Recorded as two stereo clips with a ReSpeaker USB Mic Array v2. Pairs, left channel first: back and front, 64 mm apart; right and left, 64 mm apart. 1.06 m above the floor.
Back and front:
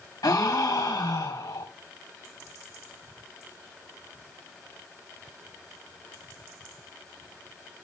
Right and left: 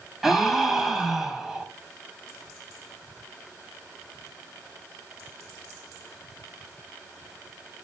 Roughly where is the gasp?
Behind.